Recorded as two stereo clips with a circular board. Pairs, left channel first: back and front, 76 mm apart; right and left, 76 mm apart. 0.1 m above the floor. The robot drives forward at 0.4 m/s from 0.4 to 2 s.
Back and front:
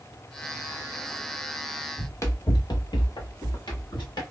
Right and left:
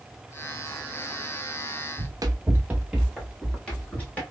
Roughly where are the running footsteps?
Behind left.